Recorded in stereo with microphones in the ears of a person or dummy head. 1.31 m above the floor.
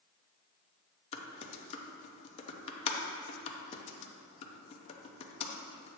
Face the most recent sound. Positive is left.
turn(degrees=30)  # may be behind; listen again after turning